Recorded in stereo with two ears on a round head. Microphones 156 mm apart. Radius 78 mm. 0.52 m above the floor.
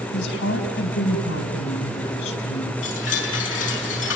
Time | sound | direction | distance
0.1 | a woman speaking | 75° left (ahead or behind) | 4.5 m
2.8 | a chime | 80° left | 7 m